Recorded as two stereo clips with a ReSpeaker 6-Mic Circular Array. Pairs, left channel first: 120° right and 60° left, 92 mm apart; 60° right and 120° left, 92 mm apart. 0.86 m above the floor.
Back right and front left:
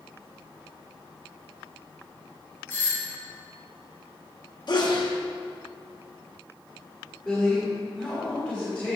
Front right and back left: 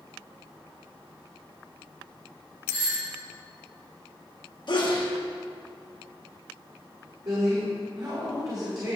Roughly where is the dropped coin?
I don't hear a dropped coin.